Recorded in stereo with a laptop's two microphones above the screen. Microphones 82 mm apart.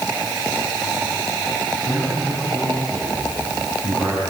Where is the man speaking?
40° left (ahead or behind), 8 m.